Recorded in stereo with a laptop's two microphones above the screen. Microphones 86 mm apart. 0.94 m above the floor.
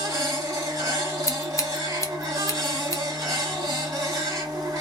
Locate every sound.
0.0 s a machine running: 45° right (ahead or behind), 1.3 m
1.3 s scissors: 35° left (ahead or behind), 0.6 m